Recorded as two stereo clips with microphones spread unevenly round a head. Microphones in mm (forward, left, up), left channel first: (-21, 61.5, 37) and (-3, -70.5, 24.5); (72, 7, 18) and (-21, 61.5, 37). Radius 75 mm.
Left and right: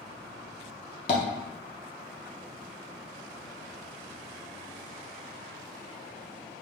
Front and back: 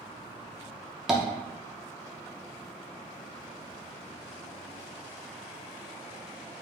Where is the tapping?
75° left, 0.7 m.